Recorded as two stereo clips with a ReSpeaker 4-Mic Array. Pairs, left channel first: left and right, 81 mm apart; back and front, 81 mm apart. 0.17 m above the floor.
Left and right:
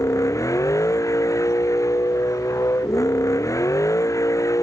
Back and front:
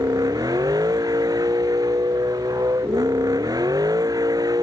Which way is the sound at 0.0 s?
40° left.